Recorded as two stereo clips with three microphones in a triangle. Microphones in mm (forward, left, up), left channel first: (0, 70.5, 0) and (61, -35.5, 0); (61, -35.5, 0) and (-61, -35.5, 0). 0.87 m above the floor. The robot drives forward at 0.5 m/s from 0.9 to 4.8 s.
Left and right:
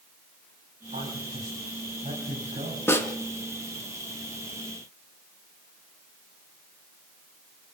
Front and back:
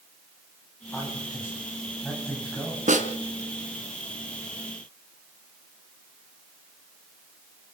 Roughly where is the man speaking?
Right.